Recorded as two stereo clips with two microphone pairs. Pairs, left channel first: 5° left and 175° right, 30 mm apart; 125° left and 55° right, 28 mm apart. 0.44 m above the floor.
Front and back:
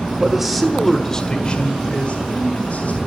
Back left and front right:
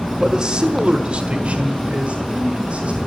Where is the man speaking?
110° right, 1.6 m; by 3.0 s 20° right, 3 m.